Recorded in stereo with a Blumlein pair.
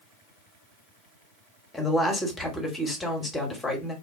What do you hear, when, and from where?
1.7 s a woman speaking: 5° left, 1.0 m